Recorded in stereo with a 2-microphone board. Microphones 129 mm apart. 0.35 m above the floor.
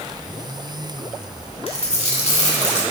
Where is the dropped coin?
55° left (ahead or behind), 1.2 m.